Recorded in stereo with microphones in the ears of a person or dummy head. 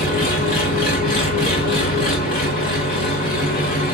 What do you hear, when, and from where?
0.0 s an engine running: 30° left (ahead or behind), 0.8 m